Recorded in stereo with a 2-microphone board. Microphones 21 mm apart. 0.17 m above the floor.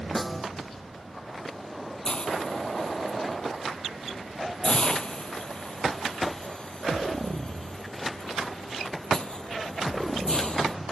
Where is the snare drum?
Centre (ahead or behind).